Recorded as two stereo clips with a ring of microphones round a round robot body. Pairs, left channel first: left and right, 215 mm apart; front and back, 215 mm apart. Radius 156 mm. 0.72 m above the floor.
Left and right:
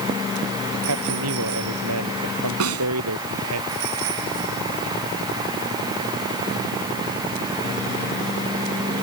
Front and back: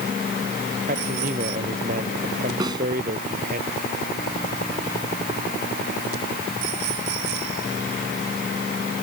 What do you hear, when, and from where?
0.9 s a man speaking: 115° right
2.6 s a snare drum: 105° right